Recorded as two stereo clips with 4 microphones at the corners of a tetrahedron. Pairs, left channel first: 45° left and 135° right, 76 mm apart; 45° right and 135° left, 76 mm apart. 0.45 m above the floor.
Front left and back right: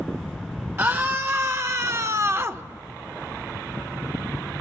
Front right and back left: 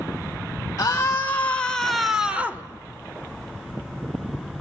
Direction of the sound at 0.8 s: 85° right.